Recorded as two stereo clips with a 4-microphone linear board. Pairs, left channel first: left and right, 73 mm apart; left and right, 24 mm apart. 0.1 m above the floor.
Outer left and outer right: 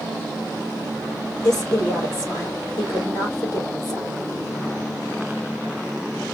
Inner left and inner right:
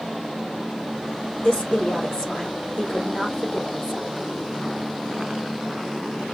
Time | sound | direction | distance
1.4 | a woman speaking | 35° left (ahead or behind) | 3.5 m